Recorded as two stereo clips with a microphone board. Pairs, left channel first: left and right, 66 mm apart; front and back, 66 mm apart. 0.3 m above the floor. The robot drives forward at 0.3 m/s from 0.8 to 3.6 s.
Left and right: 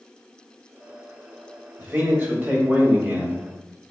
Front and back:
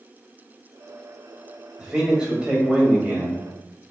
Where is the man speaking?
110° right, 1.8 m; by 3.4 s 130° right, 1.9 m.